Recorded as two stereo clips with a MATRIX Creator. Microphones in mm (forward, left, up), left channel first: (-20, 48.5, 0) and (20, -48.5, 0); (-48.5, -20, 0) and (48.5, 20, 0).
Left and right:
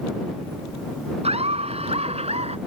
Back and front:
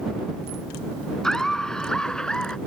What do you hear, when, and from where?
1.2 s laughter: 75° right